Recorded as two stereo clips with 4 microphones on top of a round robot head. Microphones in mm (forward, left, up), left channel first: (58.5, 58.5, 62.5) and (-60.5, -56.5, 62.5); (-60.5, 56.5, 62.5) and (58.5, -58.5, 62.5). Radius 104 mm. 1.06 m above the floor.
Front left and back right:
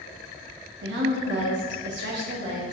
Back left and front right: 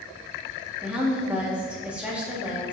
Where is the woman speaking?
125° right, 1.8 m.